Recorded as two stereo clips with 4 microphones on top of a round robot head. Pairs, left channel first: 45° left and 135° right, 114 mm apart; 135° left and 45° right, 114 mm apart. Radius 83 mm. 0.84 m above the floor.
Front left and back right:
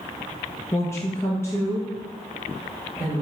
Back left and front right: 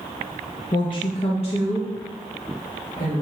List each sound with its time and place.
0.7 s a woman speaking: 100° left, 0.6 m; by 3.2 s 115° left, 2.5 m